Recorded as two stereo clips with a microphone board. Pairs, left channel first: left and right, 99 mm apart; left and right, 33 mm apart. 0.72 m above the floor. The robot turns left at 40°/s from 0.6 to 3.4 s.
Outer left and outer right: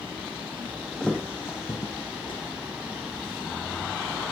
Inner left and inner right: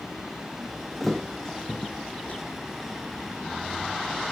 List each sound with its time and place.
1.0 s a thud: 5° left (ahead or behind), 3 m; by 2.4 s 60° left (ahead or behind), 3 m